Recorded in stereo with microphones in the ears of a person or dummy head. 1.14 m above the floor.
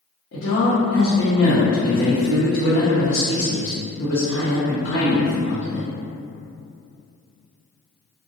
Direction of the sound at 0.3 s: 75° left (ahead or behind).